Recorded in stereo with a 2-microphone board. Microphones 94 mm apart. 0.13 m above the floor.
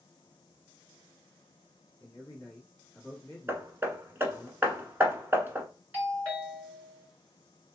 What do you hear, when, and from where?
2.0 s a man speaking: 10° left (ahead or behind), 1.5 m
3.5 s hammering: 25° right (ahead or behind), 0.8 m
5.9 s a doorbell: 20° right (ahead or behind), 1.9 m